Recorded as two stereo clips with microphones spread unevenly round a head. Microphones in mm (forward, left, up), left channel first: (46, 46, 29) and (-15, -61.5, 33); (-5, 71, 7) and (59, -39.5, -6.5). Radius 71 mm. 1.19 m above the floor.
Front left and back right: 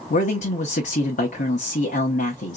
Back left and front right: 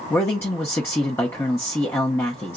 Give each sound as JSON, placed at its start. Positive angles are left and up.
{"t": 0.1, "sound": "a man speaking", "azimuth_deg": 45, "distance_m": 0.9}